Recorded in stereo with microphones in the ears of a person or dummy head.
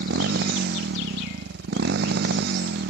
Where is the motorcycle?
55° right (ahead or behind).